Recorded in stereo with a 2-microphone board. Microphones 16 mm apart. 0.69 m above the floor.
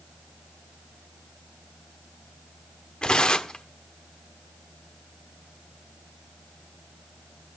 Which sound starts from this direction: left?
Tearing paper, at 3.0 s.